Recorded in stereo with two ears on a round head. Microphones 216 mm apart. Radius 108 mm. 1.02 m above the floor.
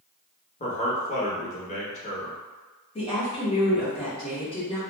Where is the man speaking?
30° left (ahead or behind), 0.8 m.